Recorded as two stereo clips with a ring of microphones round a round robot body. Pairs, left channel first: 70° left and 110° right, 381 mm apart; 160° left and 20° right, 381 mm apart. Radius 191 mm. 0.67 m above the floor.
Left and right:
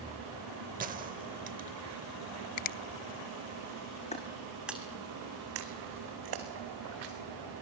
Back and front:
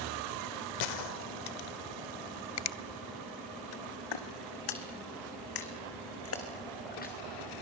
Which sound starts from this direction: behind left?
Footsteps, at 4.1 s.